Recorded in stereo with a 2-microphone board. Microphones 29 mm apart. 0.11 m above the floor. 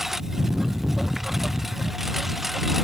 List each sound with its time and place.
0.0 s a lawn mower: 10° right (ahead or behind); by 2.9 s 5° right (ahead or behind)